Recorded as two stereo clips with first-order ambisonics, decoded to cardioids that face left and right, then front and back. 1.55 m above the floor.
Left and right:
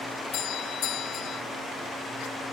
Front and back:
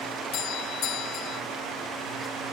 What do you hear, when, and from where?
0.3 s a doorbell: 45° left